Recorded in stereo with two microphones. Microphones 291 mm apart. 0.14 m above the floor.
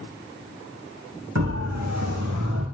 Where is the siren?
60° right (ahead or behind), 7.5 m; by 2.6 s 65° right (ahead or behind), 6.5 m.